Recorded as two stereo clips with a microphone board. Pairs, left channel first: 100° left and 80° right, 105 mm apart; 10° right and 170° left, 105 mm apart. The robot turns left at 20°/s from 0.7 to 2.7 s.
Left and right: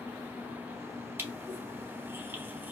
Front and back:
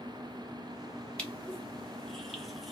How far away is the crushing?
About 1.3 m.